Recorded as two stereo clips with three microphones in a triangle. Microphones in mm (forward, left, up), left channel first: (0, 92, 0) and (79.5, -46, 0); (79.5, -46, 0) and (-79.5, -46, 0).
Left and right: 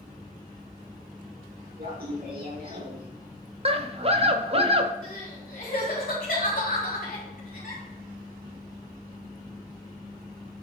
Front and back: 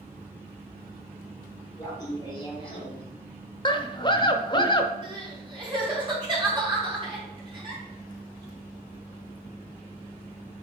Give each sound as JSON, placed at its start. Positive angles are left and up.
{"t": 1.8, "sound": "laughter", "azimuth_deg": -70, "distance_m": 4.0}
{"t": 3.6, "sound": "a scream", "azimuth_deg": -45, "distance_m": 0.9}
{"t": 5.0, "sound": "crying", "azimuth_deg": 125, "distance_m": 4.0}